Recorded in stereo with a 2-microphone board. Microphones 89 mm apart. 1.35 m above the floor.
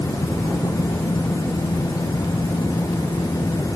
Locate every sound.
Only background noise.